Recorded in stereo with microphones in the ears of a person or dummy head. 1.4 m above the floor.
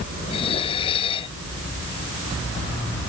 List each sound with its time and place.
0.3 s dishes clattering: 30° left (ahead or behind)